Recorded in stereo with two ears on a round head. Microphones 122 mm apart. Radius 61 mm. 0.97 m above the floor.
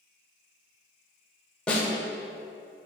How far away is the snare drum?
About 1.3 m.